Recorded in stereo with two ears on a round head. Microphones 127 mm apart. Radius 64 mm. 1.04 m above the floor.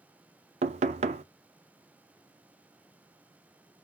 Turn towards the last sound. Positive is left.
turn(degrees=-50)  # may be behind; listen again after turning